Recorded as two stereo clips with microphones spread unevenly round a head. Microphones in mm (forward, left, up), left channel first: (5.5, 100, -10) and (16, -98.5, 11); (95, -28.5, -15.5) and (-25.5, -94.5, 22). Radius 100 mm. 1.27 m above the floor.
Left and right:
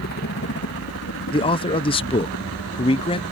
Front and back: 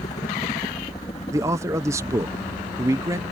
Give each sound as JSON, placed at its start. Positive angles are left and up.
{"t": 0.0, "sound": "a helicopter", "azimuth_deg": 75}
{"t": 1.3, "sound": "a man speaking", "azimuth_deg": 125}